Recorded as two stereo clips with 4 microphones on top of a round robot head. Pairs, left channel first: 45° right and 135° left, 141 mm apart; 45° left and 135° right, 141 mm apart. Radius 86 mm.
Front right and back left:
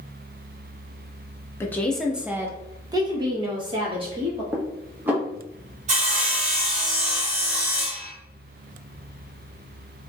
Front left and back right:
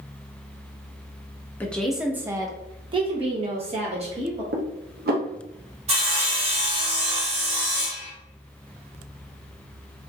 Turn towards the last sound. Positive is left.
turn(degrees=175)